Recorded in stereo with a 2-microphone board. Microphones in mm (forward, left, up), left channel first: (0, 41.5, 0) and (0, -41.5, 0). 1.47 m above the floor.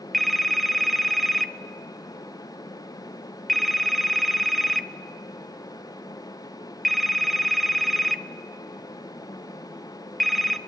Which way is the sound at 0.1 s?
Centre (ahead or behind).